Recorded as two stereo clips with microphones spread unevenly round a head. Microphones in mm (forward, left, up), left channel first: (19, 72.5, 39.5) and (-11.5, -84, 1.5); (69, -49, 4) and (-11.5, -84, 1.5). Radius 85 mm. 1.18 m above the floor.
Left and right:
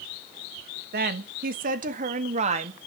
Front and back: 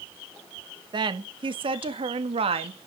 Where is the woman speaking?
125° right, 1.7 m; by 2.8 s 155° right, 2.0 m.